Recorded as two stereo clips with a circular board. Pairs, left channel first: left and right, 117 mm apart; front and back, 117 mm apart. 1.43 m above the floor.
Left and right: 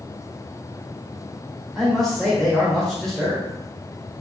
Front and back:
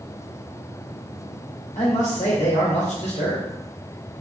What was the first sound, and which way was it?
A man speaking, 5° left.